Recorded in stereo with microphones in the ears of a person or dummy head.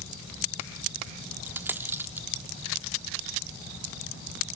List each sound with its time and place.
1.5 s a dropped coin: 10° right (ahead or behind), 1.3 m